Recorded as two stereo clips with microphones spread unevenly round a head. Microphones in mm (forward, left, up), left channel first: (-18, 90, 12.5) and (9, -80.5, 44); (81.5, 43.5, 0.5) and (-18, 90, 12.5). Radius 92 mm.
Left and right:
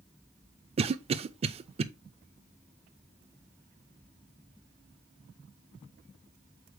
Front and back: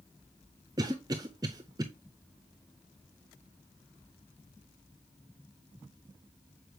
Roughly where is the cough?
Behind right.